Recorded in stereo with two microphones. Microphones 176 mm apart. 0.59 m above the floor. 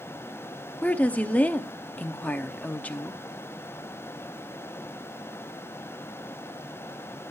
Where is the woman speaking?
10° left (ahead or behind), 0.7 m.